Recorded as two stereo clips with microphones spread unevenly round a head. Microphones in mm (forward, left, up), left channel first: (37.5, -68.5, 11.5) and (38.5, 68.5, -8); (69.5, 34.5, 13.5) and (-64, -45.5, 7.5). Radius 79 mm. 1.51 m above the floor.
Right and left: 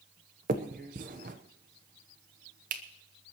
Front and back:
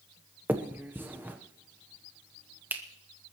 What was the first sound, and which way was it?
A finger snap, 130° left.